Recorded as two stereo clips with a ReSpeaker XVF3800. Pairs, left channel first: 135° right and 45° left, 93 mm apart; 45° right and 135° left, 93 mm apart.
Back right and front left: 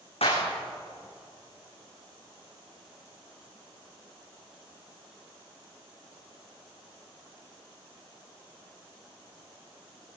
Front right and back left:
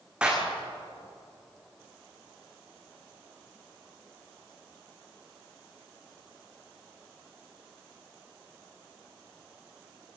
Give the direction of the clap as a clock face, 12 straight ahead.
5 o'clock.